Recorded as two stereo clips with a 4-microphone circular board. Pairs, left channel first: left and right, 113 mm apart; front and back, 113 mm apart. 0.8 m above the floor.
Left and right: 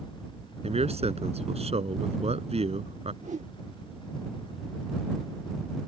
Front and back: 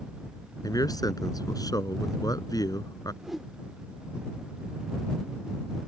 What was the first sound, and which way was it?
A man speaking, 60° right.